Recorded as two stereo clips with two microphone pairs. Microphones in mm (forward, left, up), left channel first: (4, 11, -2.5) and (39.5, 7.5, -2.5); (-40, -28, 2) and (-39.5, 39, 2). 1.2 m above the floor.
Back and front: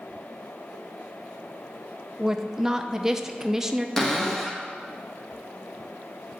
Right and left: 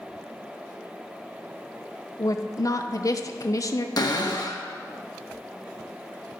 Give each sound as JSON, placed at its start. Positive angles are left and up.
{"t": 2.2, "sound": "a woman speaking", "azimuth_deg": -80, "distance_m": 0.7}
{"t": 4.0, "sound": "a cupboard door", "azimuth_deg": -105, "distance_m": 1.1}